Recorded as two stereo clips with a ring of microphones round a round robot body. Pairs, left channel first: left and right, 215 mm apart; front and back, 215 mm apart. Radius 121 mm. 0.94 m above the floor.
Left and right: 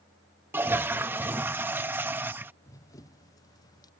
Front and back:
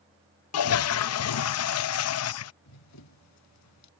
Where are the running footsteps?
10° left; by 3.9 s 15° left.